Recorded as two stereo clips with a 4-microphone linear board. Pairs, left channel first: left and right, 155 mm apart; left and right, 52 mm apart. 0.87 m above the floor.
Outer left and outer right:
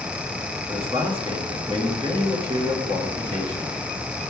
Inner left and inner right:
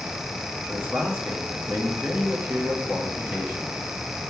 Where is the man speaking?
35° right (ahead or behind), 1.7 m.